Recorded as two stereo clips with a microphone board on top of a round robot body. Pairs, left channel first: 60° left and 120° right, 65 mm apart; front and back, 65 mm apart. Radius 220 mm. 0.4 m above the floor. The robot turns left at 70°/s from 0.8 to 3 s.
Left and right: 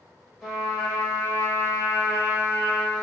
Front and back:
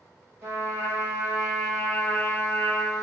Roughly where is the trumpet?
Behind left.